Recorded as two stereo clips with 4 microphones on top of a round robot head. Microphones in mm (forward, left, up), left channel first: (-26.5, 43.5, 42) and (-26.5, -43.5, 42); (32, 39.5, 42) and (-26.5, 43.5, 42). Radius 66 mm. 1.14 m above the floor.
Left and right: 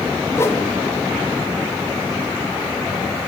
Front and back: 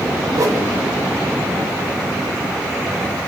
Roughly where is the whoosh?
Behind left.